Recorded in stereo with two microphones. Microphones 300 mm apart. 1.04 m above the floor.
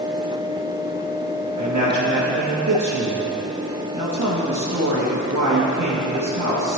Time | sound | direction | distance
1.6 | a man speaking | 70° right (ahead or behind) | 1.2 m